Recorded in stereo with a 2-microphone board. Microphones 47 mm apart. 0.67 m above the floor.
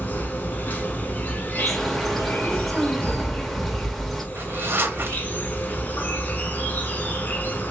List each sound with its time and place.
0.0 s an insect: 40° left (ahead or behind), 0.8 m
1.6 s a bird: 5° left (ahead or behind), 0.6 m
4.3 s a zipper: 50° right (ahead or behind), 0.8 m